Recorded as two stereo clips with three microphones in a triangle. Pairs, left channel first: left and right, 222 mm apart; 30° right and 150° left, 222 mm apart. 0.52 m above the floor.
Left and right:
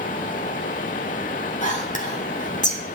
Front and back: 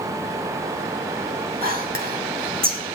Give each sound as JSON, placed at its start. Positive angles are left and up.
{"t": 1.6, "sound": "whispering", "azimuth_deg": 130, "distance_m": 1.6}